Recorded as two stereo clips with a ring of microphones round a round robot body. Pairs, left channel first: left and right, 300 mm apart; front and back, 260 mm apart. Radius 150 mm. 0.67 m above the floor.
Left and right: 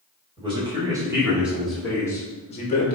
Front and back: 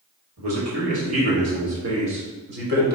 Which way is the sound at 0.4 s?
160° right.